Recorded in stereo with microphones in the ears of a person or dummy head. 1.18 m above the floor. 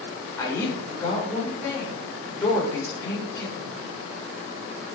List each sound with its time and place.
0.4 s a woman speaking: 10° left (ahead or behind), 4.5 m